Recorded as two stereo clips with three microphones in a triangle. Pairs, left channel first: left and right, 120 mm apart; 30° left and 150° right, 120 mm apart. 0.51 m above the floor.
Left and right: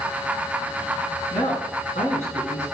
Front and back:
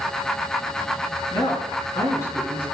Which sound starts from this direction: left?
A man speaking, at 1.3 s.